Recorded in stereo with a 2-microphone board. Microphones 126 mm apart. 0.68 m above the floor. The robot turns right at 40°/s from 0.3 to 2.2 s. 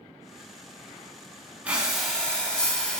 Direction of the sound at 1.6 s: 10° right (ahead or behind).